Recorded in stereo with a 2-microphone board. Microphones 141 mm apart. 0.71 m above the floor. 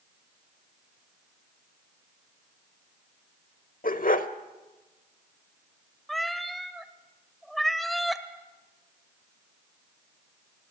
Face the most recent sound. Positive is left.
turn(degrees=0)  # may be behind; listen again after turning